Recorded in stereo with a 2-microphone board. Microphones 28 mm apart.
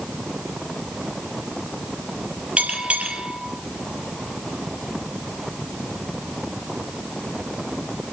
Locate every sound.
2.6 s a bell: 60° right (ahead or behind), 5.5 m